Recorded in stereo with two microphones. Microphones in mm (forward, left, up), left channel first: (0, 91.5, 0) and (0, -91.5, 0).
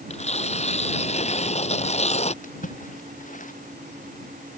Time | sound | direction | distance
0.1 | tearing paper | 35° left (ahead or behind) | ?
2.4 | a splash | 45° left (ahead or behind) | ?